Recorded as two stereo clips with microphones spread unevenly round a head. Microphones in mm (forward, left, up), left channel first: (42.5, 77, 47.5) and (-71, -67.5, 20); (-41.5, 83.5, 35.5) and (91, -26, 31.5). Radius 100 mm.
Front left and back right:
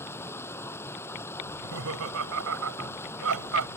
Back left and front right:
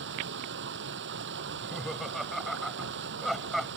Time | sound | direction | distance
0.0 | running water | 25° right | ?
1.5 | laughter | 130° right | ?